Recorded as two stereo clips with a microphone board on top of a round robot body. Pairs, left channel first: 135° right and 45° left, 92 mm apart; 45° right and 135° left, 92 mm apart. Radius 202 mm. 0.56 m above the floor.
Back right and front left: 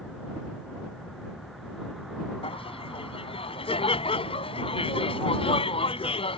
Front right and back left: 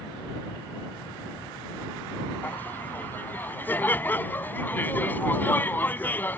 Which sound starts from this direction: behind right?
Laughter, at 2.4 s.